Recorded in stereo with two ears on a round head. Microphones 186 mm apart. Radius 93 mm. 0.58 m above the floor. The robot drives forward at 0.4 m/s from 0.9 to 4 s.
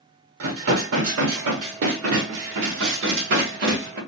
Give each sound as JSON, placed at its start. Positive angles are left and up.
{"t": 0.4, "sound": "dishes clattering", "side_deg": -65, "distance_m": 1.4}